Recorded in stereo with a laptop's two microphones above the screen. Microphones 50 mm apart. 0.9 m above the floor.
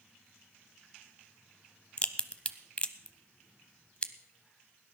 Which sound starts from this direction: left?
A crack, at 2.0 s.